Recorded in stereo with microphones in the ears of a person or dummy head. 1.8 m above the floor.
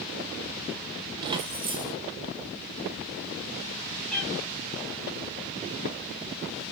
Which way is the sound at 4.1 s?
Centre (ahead or behind).